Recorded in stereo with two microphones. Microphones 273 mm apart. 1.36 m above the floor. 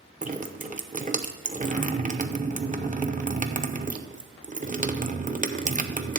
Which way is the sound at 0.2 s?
30° right (ahead or behind).